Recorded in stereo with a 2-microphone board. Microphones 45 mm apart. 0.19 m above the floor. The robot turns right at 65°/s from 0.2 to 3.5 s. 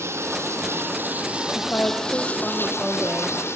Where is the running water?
100° right, 3 m; by 3.6 s 110° left, 3 m.